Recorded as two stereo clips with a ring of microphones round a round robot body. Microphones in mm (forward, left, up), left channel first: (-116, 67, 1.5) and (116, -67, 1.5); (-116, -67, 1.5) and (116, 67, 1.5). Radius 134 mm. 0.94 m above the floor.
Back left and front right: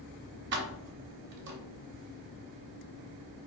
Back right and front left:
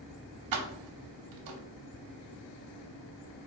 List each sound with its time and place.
0.5 s keys jangling: 20° left, 0.7 m